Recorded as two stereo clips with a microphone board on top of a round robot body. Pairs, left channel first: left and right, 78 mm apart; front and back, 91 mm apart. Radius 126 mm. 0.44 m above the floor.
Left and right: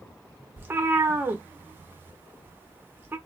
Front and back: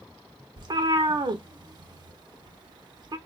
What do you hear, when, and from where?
0.6 s a cat meowing: 150° right, 0.7 m